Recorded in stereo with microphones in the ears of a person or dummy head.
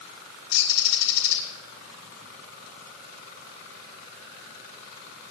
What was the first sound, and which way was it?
A bird, 75° left (ahead or behind).